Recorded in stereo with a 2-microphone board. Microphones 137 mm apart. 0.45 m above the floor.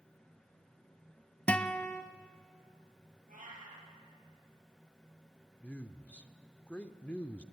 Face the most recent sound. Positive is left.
turn(degrees=10)  # may be behind; listen again after turning